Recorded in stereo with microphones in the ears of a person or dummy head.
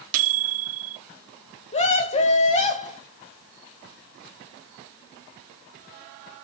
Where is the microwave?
50° right (ahead or behind), 0.8 m.